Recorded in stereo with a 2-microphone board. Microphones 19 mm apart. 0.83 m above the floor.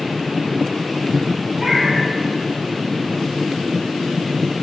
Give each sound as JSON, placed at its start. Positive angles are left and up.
{"t": 1.6, "sound": "a cat meowing", "side_deg": -35, "distance_m": 4.5}